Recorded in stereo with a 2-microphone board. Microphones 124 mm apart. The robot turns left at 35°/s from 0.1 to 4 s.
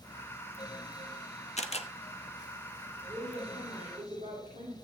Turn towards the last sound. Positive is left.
turn(degrees=-90)